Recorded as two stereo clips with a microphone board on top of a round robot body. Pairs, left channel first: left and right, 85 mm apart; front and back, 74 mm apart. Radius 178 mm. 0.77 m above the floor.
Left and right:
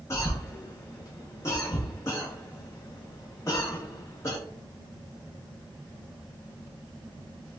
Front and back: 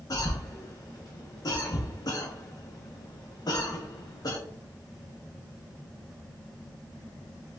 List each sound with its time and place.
0.1 s a cough: 35° left, 1.0 m